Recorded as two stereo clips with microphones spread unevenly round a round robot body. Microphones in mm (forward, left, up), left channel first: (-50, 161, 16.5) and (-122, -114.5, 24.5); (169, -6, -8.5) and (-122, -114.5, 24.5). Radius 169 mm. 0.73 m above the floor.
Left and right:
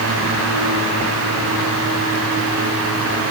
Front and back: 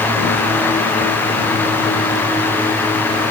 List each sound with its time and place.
Only background noise.